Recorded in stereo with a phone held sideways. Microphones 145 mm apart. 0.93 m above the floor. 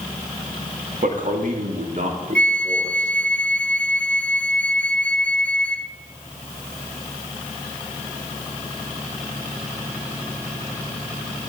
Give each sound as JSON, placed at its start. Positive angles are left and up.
{"t": 1.0, "sound": "a man speaking", "side_deg": -65, "distance_m": 1.9}
{"t": 2.4, "sound": "a flute", "side_deg": 10, "distance_m": 0.5}